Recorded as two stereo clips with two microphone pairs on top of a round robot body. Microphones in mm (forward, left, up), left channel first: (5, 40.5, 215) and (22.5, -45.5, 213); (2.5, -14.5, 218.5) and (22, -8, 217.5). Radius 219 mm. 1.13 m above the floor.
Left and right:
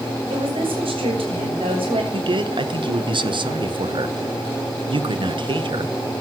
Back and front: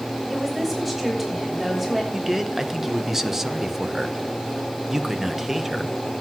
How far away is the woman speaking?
About 7.5 m.